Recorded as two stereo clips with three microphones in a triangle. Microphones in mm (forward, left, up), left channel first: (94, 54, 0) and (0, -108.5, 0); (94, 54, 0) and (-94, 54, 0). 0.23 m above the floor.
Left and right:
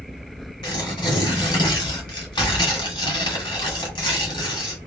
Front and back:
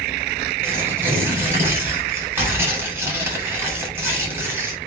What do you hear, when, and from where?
0.6 s tearing paper: 110° left, 1.9 m